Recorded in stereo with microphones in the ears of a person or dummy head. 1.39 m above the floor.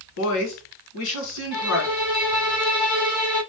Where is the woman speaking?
75° left (ahead or behind), 1.4 m.